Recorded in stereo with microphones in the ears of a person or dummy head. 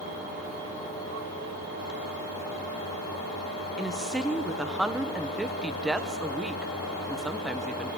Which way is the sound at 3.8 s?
5° right (ahead or behind).